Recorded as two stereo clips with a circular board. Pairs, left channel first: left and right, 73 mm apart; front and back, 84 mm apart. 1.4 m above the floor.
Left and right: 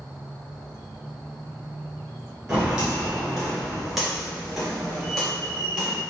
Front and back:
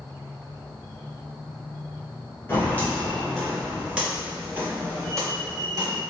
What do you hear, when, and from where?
2.5 s footsteps: 25° right, 1.5 m; by 6.0 s 170° left, 2 m